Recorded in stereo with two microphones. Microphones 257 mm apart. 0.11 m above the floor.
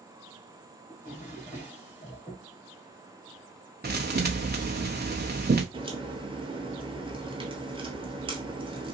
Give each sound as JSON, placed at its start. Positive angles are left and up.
{"t": 0.9, "sound": "a drawer", "side_deg": 25, "distance_m": 1.8}
{"t": 3.8, "sound": "a thud", "side_deg": -40, "distance_m": 0.7}
{"t": 5.7, "sound": "a crack", "side_deg": -20, "distance_m": 0.9}